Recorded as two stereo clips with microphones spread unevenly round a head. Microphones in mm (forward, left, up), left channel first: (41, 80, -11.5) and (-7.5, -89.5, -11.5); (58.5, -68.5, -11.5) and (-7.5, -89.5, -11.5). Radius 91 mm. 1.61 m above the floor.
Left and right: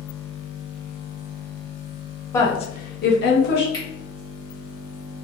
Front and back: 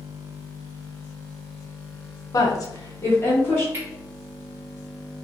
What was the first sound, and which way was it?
A woman speaking, straight ahead.